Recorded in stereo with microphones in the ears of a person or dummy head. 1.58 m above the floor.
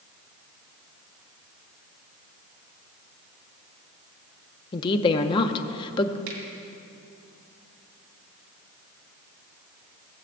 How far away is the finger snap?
About 2.5 m.